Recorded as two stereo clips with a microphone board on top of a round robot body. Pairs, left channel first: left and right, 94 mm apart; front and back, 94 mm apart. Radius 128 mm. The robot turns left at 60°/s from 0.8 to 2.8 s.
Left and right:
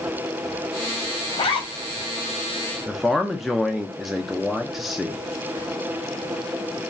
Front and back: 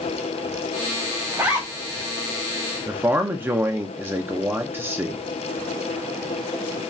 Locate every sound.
1.3 s a zipper: 120° left, 1.0 m; by 2.1 s 75° left, 1.0 m
2.9 s a man speaking: 175° right, 0.6 m